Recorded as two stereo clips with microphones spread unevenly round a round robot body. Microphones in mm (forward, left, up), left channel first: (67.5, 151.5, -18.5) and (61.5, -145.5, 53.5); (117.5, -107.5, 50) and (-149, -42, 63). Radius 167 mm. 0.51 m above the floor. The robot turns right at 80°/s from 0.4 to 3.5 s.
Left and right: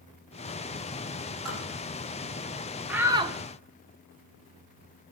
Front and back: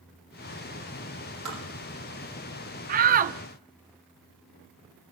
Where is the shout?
155° left, 0.7 m; by 3.4 s 165° right, 0.7 m.